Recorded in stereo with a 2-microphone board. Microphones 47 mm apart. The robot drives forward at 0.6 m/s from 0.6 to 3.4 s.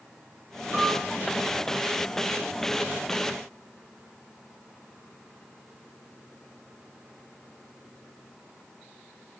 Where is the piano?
10° right (ahead or behind), 5.5 m.